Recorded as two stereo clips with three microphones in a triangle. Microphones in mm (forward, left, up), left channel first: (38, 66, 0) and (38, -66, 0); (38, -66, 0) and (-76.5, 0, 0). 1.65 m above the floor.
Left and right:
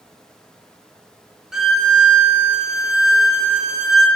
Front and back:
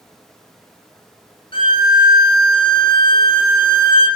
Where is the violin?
5° right, 0.6 m.